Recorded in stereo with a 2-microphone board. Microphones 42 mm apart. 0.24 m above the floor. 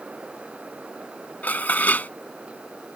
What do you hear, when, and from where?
1.4 s dishes clattering: 45° left (ahead or behind)